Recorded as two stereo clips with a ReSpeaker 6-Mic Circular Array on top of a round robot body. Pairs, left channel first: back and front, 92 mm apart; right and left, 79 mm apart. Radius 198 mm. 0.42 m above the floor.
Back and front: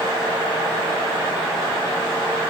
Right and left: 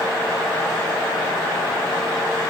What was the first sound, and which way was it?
Only background noise.